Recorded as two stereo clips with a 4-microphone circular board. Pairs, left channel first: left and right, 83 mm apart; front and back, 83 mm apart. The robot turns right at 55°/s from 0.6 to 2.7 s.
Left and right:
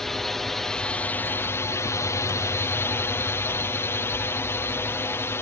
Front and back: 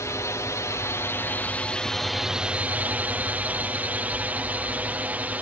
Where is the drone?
10° left; by 5.4 s 125° left.